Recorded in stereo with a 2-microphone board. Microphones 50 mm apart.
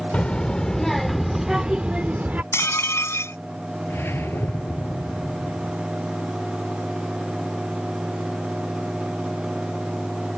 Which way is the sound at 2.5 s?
70° left (ahead or behind).